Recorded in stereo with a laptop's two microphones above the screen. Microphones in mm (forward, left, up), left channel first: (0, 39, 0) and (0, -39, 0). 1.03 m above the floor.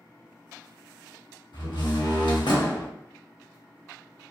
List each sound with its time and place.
1.5 s a door slam: 70° left (ahead or behind), 1.0 m